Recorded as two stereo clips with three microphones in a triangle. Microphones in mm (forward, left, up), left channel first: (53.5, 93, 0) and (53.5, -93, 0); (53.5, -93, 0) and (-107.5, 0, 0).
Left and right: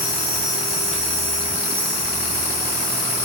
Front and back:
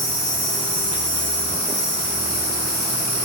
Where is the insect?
145° left, 1.2 m.